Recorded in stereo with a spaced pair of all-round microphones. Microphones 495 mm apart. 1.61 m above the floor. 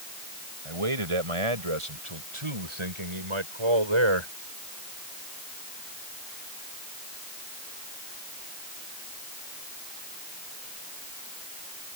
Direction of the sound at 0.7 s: 85° right.